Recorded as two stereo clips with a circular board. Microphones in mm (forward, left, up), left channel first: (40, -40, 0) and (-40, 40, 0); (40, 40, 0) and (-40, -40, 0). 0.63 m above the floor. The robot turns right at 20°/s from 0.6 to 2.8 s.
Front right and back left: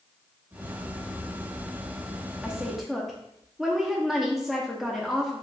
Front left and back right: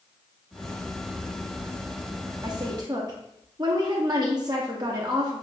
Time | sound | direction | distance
2.4 | a woman speaking | 145° right | 0.7 m